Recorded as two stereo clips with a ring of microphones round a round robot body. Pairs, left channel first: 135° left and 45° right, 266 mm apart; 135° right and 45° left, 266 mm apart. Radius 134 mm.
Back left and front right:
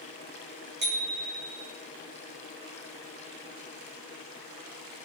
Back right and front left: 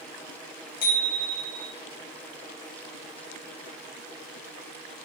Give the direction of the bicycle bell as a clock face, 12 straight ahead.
3 o'clock.